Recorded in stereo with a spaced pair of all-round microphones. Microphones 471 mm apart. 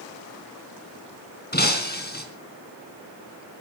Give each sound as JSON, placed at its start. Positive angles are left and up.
{"t": 1.5, "sound": "breaking glass", "side_deg": 20, "distance_m": 3.5}